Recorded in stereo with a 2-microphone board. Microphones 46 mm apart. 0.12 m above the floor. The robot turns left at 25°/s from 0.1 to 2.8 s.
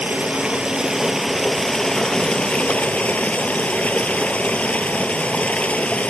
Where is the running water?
145° right, 2 m; by 6.1 s 145° left, 2 m.